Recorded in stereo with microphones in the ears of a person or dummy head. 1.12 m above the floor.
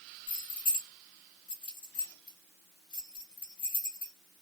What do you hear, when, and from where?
0.3 s keys jangling: 25° left (ahead or behind), 1.2 m